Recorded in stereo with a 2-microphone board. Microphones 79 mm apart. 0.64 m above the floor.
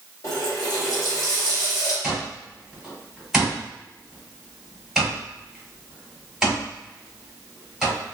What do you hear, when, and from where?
0.2 s a running tap: 60° left (ahead or behind), 1.5 m
2.0 s an alarm clock: 5° right (ahead or behind), 1.6 m